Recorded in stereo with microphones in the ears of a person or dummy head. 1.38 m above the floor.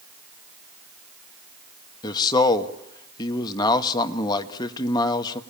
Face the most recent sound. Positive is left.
turn(degrees=20)  # may be behind; listen again after turning